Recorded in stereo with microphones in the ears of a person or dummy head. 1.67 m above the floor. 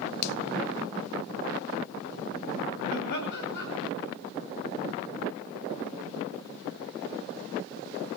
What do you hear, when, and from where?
0.2 s a finger snap: 60° left (ahead or behind), 0.7 m
2.9 s laughter: 65° left (ahead or behind), 8.5 m